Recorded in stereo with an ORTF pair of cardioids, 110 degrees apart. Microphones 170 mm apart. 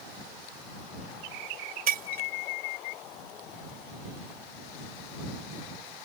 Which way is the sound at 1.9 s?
60° right.